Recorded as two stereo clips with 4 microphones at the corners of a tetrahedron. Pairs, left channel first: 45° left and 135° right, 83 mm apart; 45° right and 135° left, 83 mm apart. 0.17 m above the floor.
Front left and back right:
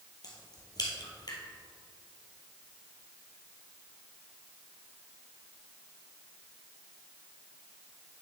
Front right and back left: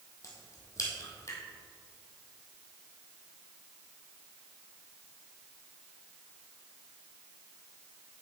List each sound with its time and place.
0.2 s a crack: 5° left, 1.9 m